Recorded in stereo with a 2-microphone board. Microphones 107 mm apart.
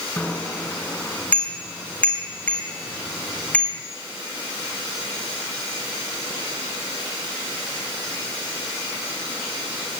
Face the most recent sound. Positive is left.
turn(degrees=10)  # may be behind; listen again after turning